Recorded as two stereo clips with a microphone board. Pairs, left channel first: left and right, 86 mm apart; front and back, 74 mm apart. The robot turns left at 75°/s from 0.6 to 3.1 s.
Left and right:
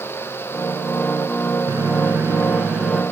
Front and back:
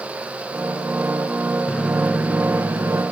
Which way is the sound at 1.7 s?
85° right.